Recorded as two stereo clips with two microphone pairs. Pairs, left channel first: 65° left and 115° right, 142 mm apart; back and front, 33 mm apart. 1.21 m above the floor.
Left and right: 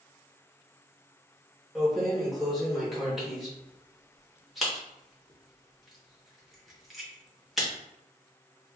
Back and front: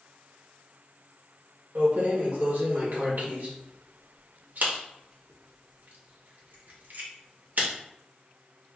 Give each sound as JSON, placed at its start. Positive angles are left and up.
{"t": 1.8, "sound": "keys jangling", "azimuth_deg": -25, "distance_m": 0.9}